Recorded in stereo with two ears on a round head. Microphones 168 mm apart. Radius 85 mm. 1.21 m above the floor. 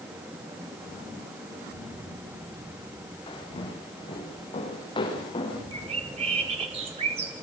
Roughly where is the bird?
Right.